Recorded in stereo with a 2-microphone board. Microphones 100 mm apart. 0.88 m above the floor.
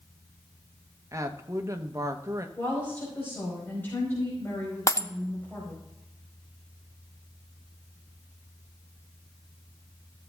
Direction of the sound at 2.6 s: 20° left (ahead or behind).